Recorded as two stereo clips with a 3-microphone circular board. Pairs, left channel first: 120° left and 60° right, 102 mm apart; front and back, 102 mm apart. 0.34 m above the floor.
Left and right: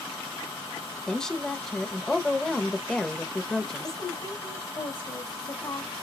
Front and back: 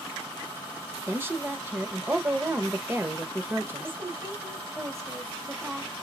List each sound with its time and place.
1.1 s a woman speaking: 170° right, 0.8 m
3.8 s a woman speaking: 130° left, 1.6 m